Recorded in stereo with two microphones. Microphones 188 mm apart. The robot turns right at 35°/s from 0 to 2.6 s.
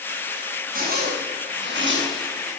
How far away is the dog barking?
I don't hear a dog barking.